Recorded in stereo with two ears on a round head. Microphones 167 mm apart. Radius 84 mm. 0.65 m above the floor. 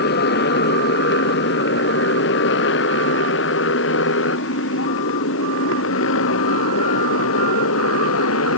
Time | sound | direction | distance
0.0 | a motorcycle | 60° left (ahead or behind) | ?